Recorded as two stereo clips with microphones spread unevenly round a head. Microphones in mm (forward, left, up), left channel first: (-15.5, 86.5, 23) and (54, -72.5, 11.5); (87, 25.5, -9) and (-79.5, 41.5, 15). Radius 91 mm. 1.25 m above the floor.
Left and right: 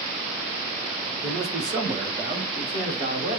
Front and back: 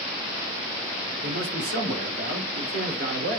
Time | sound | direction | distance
1.2 | a man speaking | 140° right | 2 m